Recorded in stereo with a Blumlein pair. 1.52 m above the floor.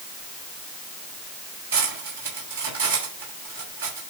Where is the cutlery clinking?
55° right, 6.5 m.